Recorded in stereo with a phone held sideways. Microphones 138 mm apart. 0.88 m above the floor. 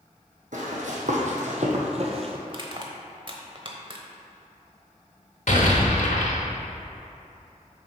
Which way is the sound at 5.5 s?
65° left (ahead or behind).